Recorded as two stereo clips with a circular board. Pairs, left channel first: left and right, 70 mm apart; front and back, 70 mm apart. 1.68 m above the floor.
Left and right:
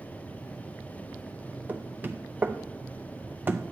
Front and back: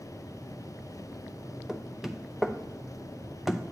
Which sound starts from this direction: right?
Knocking, at 1.7 s.